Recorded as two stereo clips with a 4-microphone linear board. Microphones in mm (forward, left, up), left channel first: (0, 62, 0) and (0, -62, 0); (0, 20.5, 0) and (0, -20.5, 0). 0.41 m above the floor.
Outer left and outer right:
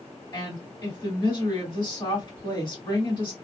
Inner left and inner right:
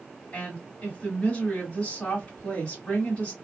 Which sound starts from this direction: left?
A woman speaking, at 0.3 s.